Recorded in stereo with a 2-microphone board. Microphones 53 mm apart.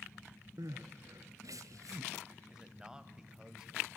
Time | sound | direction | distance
0.6 | crying | 75° right (ahead or behind) | 1.1 m
2.5 | a man speaking | 15° right (ahead or behind) | 1.5 m